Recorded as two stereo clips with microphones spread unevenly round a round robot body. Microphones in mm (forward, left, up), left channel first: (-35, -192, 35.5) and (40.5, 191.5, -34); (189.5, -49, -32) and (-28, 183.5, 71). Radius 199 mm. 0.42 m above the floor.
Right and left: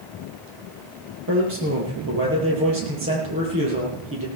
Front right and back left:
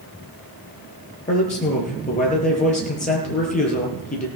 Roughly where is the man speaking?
Ahead.